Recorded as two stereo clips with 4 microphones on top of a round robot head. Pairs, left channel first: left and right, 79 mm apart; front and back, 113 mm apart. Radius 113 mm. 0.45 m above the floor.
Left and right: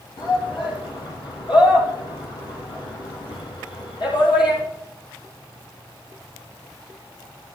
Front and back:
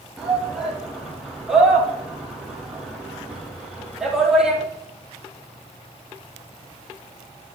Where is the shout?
90° left, 6 m.